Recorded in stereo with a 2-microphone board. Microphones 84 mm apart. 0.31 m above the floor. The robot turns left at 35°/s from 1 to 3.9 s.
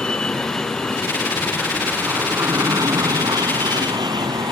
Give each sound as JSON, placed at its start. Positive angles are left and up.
{"t": 0.0, "sound": "an aircraft", "side_deg": 10}